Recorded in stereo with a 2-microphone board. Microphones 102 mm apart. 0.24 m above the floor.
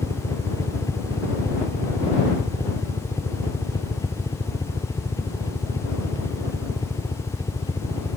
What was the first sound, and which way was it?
A helicopter, 30° left (ahead or behind).